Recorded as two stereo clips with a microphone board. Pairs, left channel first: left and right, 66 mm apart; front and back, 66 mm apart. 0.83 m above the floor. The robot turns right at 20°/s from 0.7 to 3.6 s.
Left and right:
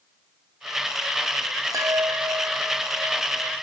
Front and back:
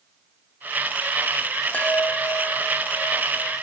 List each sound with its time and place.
1.7 s a chime: 65° right; by 3.6 s 25° right